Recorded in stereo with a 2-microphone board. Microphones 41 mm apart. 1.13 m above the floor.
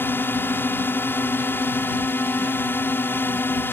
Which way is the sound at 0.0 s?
60° left (ahead or behind).